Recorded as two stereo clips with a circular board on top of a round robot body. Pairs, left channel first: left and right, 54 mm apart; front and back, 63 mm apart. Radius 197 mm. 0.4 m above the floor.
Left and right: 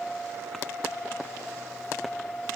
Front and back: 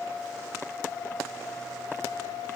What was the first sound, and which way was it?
Only background noise.